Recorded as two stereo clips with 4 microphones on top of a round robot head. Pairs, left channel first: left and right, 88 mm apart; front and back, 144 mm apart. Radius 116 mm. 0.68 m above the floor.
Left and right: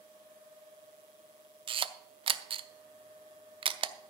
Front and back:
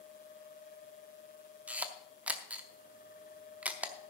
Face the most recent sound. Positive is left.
turn(degrees=-100)